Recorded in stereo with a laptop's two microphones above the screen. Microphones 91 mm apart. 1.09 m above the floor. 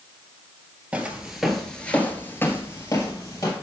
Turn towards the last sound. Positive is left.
turn(degrees=40)  # may be behind; listen again after turning